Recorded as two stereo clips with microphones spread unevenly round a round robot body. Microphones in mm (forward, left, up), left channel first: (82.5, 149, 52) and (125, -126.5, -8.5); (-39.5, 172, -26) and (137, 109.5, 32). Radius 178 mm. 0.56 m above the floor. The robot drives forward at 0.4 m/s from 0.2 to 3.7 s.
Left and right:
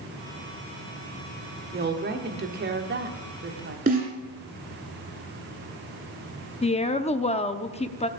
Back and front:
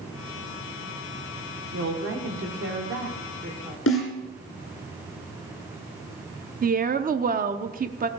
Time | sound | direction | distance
1.7 | a woman speaking | 45° right | 1.8 m
3.9 | a snare drum | 155° right | 1.9 m
6.6 | a woman speaking | 25° left | 0.8 m